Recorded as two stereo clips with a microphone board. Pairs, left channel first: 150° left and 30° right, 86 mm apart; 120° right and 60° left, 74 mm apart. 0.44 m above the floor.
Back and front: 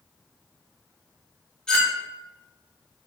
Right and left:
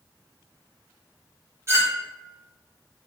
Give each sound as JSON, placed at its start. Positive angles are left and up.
{"t": 1.7, "sound": "a clink", "azimuth_deg": 75, "distance_m": 0.7}